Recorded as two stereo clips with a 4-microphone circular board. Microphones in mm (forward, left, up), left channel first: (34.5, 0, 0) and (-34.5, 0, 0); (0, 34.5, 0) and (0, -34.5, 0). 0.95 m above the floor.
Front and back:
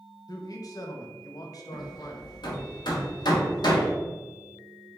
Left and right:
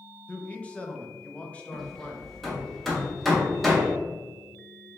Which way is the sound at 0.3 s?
20° left.